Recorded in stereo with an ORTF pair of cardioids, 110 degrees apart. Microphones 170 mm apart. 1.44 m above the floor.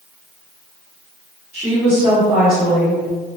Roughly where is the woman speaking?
Ahead.